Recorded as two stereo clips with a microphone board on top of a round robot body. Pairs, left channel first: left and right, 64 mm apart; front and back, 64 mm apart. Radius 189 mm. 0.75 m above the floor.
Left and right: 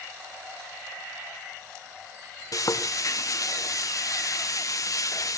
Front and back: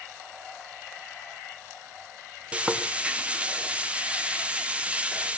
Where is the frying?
110° left, 2 m.